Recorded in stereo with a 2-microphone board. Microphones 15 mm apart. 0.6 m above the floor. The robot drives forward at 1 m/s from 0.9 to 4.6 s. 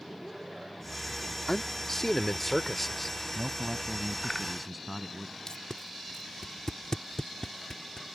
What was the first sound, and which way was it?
A man speaking, 30° left (ahead or behind).